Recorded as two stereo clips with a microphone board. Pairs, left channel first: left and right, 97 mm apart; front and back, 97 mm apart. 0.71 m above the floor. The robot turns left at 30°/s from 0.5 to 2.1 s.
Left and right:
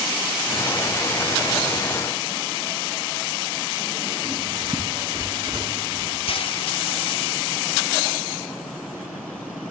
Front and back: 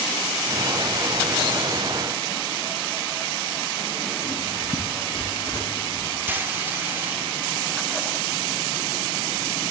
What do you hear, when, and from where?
4.2 s writing: 45° right, 6 m
6.3 s frying: 110° left, 1.0 m